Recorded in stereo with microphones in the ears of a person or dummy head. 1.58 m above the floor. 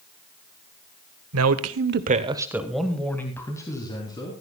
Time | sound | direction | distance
1.3 | a man speaking | 80° right | 1.3 m